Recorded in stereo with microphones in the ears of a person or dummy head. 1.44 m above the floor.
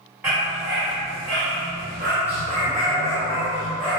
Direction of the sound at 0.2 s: 10° right (ahead or behind).